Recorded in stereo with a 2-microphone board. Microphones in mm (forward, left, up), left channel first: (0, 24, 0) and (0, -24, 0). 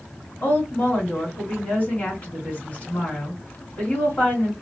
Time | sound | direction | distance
0.4 | a woman speaking | 25° left (ahead or behind) | 1.7 m